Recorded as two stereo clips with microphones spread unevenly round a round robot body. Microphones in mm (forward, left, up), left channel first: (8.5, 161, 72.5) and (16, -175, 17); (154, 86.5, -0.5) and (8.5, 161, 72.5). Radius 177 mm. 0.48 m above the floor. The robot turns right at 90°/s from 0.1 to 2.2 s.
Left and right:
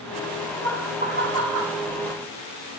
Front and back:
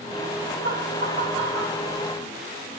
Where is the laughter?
170° left, 1.5 m; by 1.8 s 85° right, 1.5 m.